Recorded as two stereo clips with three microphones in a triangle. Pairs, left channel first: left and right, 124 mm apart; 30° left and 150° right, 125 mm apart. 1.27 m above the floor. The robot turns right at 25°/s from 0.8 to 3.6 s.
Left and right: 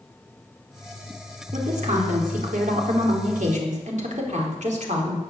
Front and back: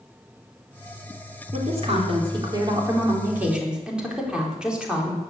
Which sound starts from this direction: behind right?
A woman speaking, at 1.5 s.